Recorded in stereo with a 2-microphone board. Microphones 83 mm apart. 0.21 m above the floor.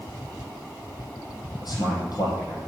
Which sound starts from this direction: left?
A man speaking, at 1.6 s.